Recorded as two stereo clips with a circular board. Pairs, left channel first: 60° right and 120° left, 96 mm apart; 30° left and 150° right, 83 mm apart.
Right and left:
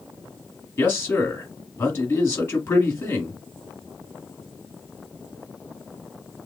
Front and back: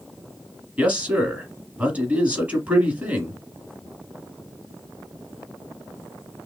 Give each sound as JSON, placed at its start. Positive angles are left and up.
{"t": 0.8, "sound": "a man speaking", "azimuth_deg": -100, "distance_m": 1.4}